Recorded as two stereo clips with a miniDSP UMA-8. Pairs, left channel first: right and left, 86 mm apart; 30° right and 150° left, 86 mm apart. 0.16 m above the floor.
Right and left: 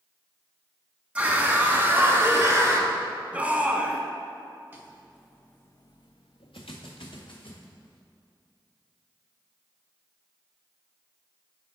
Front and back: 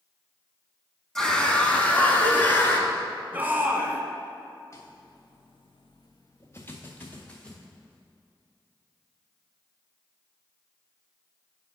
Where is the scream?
45° left, 1.0 m; by 2.9 s 35° left, 1.9 m.